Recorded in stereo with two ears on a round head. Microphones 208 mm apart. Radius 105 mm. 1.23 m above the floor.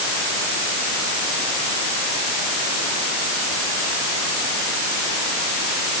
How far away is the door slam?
No door slam in this recording.